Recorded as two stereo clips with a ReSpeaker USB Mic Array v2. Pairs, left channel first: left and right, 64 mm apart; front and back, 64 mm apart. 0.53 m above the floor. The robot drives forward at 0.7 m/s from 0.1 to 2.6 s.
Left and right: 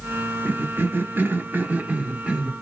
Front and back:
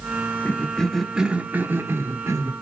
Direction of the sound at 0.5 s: 50° right.